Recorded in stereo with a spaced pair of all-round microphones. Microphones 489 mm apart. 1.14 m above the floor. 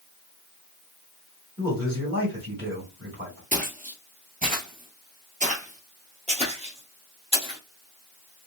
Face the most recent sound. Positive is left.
turn(degrees=-10)  # may be behind; listen again after turning